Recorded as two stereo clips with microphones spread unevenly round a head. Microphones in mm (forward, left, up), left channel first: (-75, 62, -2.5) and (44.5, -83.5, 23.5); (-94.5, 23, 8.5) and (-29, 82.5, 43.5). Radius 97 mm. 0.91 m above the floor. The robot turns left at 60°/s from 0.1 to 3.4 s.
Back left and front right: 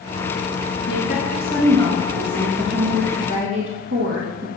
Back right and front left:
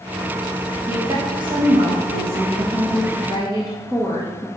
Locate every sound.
0.9 s a woman speaking: 115° left, 1.3 m; by 4.5 s 35° right, 1.3 m